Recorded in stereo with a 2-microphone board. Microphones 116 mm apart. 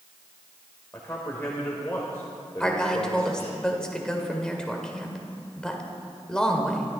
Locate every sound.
0.9 s a man speaking: 20° left (ahead or behind), 2.0 m
2.6 s a woman speaking: 5° left (ahead or behind), 1.9 m